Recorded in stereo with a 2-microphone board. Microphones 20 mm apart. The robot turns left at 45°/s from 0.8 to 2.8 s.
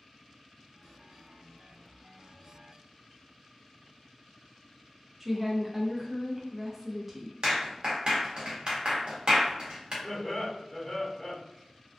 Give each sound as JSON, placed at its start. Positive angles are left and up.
{"t": 5.2, "sound": "a woman speaking", "side_deg": -10, "distance_m": 0.5}
{"t": 7.4, "sound": "a clap", "side_deg": -50, "distance_m": 0.9}
{"t": 10.0, "sound": "laughter", "side_deg": 35, "distance_m": 1.2}